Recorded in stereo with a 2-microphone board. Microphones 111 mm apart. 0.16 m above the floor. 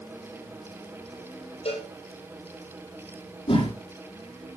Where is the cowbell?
60° left (ahead or behind), 7 m.